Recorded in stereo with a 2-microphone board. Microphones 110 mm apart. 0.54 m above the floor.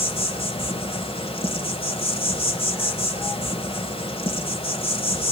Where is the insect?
55° left (ahead or behind), 1.5 m.